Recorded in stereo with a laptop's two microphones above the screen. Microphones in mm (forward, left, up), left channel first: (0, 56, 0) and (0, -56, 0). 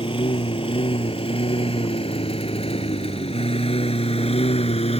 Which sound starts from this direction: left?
A lawn mower, at 0.0 s.